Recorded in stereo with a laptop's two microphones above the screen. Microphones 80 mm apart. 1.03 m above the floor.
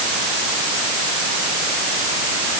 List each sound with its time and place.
Only background noise.